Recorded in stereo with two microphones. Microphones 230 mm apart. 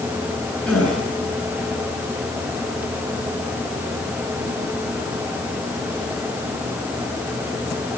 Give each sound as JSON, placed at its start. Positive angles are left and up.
{"t": 0.7, "sound": "a gasp", "side_deg": 5, "distance_m": 9.5}